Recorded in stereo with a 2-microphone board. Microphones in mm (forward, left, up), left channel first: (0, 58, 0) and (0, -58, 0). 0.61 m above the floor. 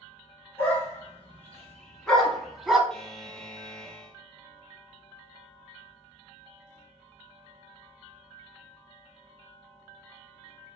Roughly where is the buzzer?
Centre.